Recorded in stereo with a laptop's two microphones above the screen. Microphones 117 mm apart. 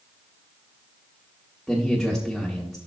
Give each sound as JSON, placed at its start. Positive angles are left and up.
{"t": 1.7, "sound": "a man speaking", "side_deg": 0, "distance_m": 1.5}